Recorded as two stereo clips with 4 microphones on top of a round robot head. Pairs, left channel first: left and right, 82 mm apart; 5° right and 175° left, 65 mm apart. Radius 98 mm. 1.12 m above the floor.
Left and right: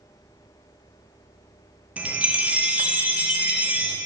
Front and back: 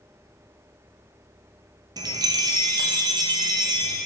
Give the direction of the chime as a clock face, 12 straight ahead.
6 o'clock.